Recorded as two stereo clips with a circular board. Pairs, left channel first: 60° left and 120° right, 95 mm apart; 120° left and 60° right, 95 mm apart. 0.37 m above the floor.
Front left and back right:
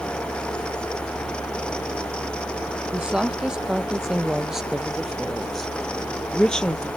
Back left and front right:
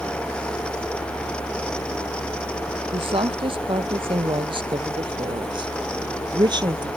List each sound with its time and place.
2.9 s a woman speaking: 40° right; by 6.9 s 20° right